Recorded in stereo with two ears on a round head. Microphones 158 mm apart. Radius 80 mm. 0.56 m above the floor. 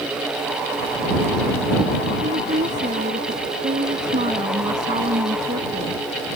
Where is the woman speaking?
45° right (ahead or behind).